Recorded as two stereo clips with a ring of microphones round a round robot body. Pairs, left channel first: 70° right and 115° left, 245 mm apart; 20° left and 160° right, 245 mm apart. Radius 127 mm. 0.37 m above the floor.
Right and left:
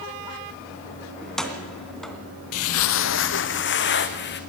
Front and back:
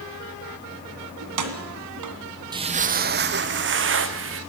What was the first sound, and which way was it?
Keys jangling, 155° right.